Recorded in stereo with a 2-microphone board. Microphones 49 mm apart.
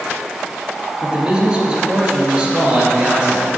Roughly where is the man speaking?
Centre.